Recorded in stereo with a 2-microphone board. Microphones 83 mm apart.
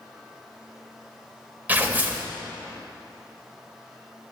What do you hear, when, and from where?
1.7 s tearing paper: 20° right (ahead or behind), 0.5 m